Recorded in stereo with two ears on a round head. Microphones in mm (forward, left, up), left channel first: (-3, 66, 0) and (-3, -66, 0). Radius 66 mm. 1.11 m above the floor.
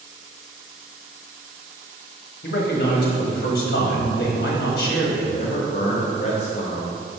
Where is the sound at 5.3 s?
50° left (ahead or behind), 0.8 m.